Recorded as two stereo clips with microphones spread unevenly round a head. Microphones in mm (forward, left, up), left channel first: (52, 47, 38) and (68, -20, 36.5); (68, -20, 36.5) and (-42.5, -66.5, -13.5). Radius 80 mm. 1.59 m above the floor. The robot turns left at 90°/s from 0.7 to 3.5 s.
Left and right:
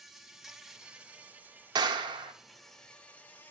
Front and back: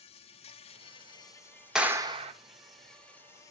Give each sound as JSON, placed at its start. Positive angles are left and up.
{"t": 0.0, "sound": "an insect", "azimuth_deg": 0, "distance_m": 0.8}
{"t": 1.8, "sound": "a clap", "azimuth_deg": -65, "distance_m": 0.9}